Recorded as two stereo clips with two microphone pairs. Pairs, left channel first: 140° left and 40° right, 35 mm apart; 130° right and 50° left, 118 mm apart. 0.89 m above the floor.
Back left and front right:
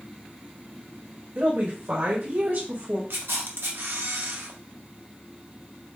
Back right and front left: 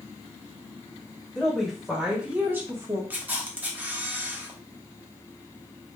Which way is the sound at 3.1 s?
25° right.